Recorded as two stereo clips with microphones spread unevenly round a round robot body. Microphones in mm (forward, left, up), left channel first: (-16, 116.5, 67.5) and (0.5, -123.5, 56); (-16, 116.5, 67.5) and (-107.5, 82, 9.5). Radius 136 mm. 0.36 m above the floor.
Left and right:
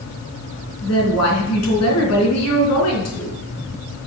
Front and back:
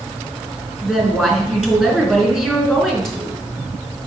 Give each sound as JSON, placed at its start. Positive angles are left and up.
{"t": 0.8, "sound": "a woman speaking", "azimuth_deg": 115, "distance_m": 4.0}